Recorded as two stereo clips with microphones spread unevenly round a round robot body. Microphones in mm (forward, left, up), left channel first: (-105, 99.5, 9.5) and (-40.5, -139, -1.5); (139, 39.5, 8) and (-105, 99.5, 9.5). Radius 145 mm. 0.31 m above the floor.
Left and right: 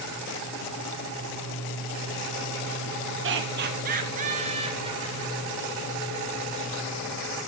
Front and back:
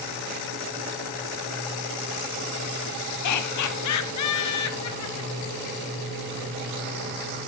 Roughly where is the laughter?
Ahead right.